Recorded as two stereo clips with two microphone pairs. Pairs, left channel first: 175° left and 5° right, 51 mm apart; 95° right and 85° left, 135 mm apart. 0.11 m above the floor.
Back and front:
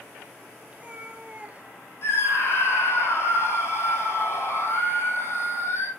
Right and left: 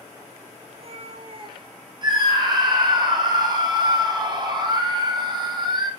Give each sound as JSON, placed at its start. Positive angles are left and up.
{"t": 0.7, "sound": "a cat meowing", "azimuth_deg": 60, "distance_m": 1.1}
{"t": 2.0, "sound": "a scream", "azimuth_deg": 140, "distance_m": 3.5}